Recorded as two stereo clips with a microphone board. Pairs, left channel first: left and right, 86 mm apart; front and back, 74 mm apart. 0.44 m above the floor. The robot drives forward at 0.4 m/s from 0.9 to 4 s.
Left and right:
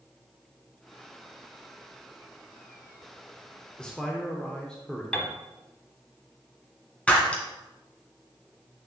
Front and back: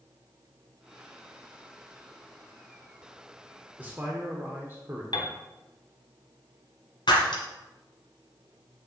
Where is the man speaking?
155° left, 0.8 m; by 5.0 s 160° left, 0.9 m.